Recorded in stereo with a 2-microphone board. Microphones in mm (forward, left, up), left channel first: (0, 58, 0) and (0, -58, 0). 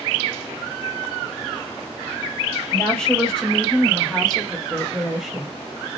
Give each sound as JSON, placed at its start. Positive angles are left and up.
{"t": 2.7, "sound": "a woman speaking", "side_deg": 10, "distance_m": 1.6}